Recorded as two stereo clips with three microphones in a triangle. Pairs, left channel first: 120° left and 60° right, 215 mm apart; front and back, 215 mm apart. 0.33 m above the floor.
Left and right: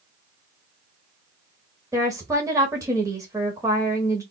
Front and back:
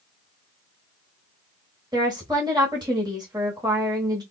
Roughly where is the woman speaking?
Behind right.